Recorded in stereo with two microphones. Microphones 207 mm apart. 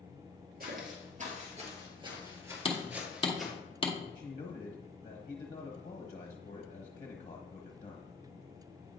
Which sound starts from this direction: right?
Footsteps, at 0.6 s.